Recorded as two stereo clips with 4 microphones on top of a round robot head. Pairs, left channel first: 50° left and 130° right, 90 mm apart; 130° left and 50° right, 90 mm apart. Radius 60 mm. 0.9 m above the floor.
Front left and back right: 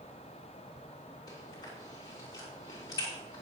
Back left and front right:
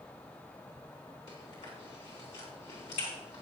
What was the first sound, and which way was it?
Chewing, 100° left.